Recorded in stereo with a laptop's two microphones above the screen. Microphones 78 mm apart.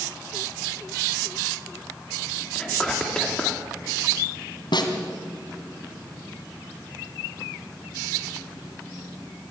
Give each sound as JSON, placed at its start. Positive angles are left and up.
{"t": 2.5, "sound": "whispering", "side_deg": 10, "distance_m": 3.0}
{"t": 4.7, "sound": "a snare drum", "side_deg": 70, "distance_m": 2.5}